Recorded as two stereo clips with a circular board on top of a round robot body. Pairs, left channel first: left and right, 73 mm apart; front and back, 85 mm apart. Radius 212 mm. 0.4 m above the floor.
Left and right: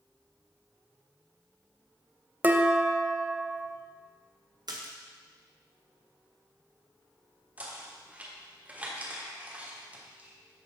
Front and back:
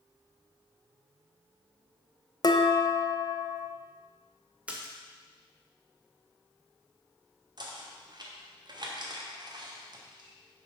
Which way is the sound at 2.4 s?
30° right.